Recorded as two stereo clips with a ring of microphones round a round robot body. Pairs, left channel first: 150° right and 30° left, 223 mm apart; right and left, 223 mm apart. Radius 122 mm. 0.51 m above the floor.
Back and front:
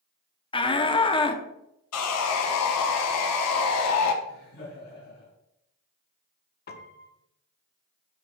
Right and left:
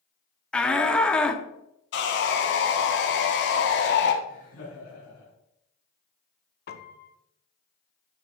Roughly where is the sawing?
Behind right.